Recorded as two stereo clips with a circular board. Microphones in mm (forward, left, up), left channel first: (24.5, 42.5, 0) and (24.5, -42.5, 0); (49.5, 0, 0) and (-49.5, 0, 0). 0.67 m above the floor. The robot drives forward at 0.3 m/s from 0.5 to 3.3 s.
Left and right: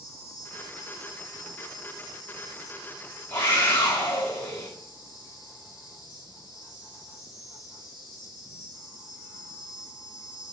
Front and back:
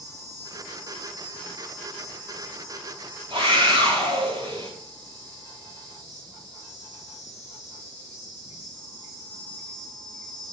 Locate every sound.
0.0 s an insect: 130° left, 4.5 m; by 10.5 s 140° left, 5 m
3.3 s a scream: 155° left, 5.5 m